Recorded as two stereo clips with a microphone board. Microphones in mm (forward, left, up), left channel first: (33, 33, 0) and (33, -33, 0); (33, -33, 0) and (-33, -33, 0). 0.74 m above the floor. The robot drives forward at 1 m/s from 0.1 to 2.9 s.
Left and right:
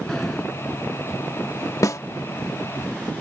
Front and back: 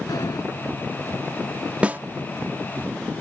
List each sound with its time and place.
0.1 s a sliding door: 5° left
1.8 s a snare drum: 115° left; by 2.0 s 125° left